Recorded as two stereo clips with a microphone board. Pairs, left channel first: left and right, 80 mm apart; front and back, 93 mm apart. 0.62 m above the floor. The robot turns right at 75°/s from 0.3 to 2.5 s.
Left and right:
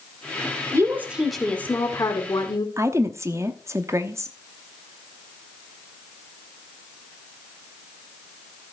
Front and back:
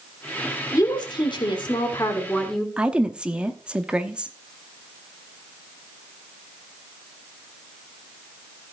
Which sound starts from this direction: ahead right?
A woman speaking, at 0.7 s.